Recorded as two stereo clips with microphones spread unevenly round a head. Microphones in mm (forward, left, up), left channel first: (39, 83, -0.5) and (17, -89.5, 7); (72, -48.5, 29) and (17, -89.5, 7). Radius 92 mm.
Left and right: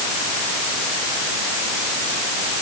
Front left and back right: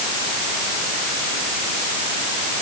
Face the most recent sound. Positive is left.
No sound to turn to.